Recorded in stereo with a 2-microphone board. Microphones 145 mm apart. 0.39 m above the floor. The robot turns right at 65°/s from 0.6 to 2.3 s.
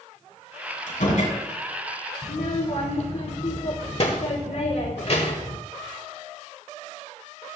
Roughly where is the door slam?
Left.